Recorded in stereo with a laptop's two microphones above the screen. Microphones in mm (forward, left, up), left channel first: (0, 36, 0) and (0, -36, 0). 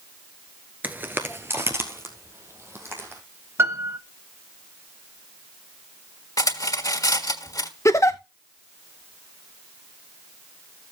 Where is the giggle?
45° left (ahead or behind), 0.8 m.